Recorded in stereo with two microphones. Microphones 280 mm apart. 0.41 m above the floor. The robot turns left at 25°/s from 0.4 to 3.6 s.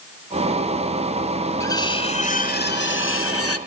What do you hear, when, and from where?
1.6 s cutlery clinking: 170° left, 1.2 m; by 3.6 s 120° left, 1.2 m